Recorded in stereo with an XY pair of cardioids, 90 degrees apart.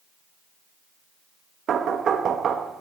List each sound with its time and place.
1.7 s knocking: 65° right, 1.1 m